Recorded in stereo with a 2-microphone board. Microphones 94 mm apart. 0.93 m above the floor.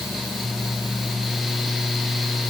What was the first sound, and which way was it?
Only background noise.